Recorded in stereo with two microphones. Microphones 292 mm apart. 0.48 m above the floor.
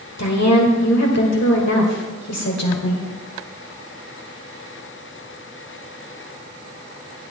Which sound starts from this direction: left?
A woman speaking, at 0.2 s.